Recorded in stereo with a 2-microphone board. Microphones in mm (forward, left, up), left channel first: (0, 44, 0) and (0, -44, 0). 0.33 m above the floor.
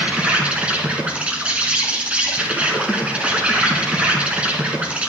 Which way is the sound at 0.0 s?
15° right (ahead or behind).